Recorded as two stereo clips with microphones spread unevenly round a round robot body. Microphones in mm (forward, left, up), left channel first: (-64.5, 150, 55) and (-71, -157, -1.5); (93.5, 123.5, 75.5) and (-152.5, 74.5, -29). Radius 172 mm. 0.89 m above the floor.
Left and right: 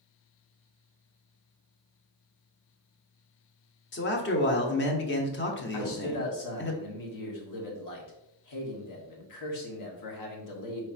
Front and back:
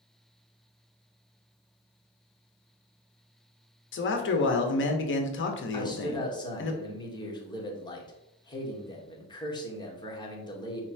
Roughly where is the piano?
I don't hear a piano.